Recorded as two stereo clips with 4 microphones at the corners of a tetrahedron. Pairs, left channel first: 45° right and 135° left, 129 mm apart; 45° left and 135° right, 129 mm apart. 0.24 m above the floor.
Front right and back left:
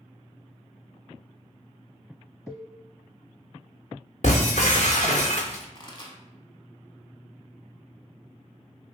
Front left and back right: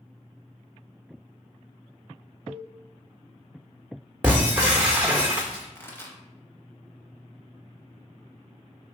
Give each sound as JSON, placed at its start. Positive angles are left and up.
{"t": 2.5, "sound": "a cowbell", "azimuth_deg": 10, "distance_m": 1.0}
{"t": 4.2, "sound": "breaking glass", "azimuth_deg": -55, "distance_m": 0.8}
{"t": 5.8, "sound": "a pop", "azimuth_deg": -20, "distance_m": 0.6}